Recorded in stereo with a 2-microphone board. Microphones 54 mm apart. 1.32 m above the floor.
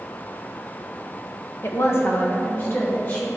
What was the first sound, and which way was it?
A woman speaking, 50° left (ahead or behind).